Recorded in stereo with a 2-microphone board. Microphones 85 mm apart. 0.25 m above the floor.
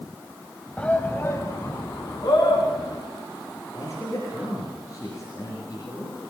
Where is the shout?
15° left (ahead or behind), 1.1 m; by 3.0 s 45° left (ahead or behind), 3.5 m.